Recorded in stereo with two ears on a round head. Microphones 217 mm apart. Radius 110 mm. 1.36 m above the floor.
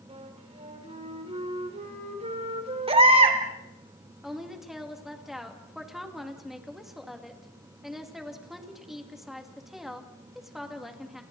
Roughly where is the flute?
Right.